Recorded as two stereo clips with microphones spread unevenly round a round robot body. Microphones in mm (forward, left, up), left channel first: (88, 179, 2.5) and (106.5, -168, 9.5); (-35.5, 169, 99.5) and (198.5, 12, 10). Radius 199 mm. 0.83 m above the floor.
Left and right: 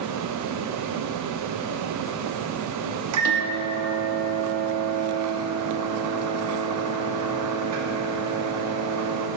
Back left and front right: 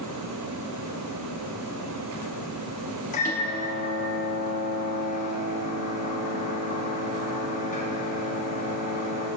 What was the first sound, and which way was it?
A microwave, 140° right.